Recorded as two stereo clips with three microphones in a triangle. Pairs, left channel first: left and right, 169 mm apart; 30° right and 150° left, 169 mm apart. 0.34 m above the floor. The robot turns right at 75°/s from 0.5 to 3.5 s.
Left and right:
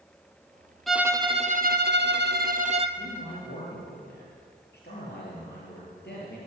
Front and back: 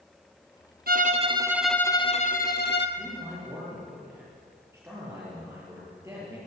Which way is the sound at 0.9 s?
Straight behind.